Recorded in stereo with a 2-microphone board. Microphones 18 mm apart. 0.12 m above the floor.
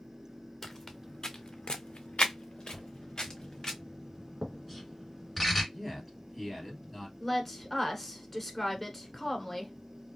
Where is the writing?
Centre (ahead or behind), 1.7 m.